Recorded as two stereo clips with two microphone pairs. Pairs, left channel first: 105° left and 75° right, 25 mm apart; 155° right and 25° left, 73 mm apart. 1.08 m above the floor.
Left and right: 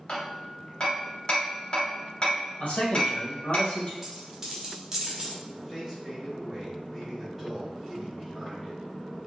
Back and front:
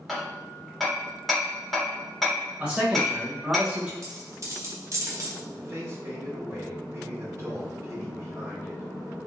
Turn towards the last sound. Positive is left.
turn(degrees=20)